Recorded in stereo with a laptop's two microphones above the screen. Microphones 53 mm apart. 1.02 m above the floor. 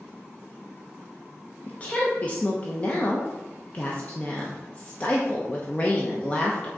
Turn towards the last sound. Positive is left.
turn(degrees=25)  # may be behind; listen again after turning